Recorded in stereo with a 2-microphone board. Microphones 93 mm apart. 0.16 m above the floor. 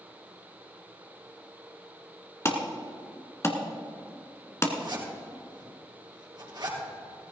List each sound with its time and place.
2.5 s an alarm: 30° left (ahead or behind), 1.5 m
4.8 s a zipper: 50° right (ahead or behind), 3 m